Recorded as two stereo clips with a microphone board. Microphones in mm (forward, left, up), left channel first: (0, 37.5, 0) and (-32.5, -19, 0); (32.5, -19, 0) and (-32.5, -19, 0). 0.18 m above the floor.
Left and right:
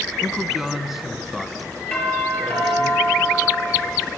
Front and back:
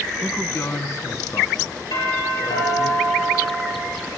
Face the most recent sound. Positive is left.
turn(degrees=-10)